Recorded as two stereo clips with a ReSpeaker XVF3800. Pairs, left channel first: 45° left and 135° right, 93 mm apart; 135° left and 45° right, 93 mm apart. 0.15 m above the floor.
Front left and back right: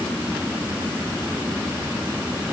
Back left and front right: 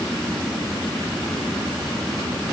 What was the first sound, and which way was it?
Only background noise.